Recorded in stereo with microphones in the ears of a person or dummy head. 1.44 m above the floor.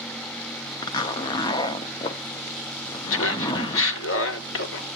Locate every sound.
0.8 s a zipper: 25° left (ahead or behind), 0.5 m
3.1 s laughter: 65° left (ahead or behind), 0.8 m